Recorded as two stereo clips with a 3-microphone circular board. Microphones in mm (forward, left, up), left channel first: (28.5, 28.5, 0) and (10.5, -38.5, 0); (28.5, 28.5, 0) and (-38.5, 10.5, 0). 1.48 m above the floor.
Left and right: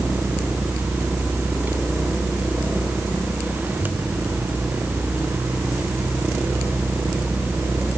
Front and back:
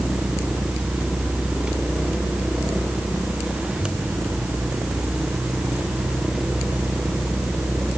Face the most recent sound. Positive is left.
No sound to turn to.